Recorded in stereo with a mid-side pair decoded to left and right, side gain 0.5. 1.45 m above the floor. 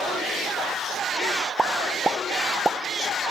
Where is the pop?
25° right, 0.8 m.